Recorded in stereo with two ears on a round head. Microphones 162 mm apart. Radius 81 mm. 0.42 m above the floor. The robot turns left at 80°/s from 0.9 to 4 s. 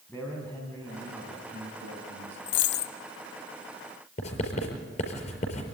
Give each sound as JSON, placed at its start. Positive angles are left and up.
{"t": 0.1, "sound": "a man speaking", "azimuth_deg": 10, "distance_m": 3.5}
{"t": 2.5, "sound": "a dropped coin", "azimuth_deg": 80, "distance_m": 1.1}
{"t": 4.2, "sound": "writing", "side_deg": 35, "distance_m": 5.0}